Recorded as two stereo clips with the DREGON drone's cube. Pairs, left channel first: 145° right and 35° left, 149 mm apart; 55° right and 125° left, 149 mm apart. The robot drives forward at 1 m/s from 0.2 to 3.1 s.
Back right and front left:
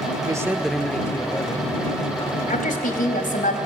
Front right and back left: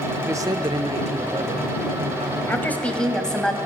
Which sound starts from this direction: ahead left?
A man speaking, at 0.2 s.